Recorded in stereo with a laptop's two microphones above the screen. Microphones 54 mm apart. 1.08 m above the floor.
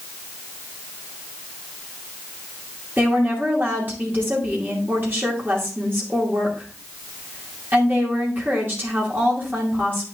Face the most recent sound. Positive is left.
turn(degrees=-40)  # may be behind; listen again after turning